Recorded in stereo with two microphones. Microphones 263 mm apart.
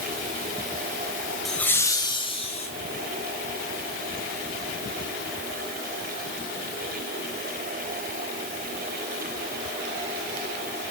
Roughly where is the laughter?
Centre.